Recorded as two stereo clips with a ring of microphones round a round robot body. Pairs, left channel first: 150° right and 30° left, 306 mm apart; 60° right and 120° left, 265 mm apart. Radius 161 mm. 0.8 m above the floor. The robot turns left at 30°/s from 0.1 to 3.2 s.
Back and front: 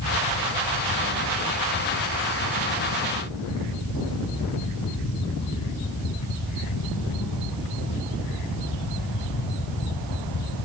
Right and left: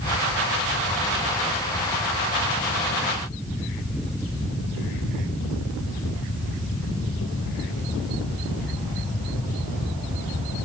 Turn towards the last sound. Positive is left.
No sound to turn to.